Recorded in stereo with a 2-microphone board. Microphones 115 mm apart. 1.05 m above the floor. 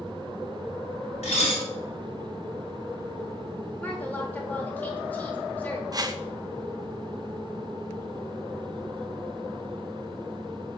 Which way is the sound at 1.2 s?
85° left.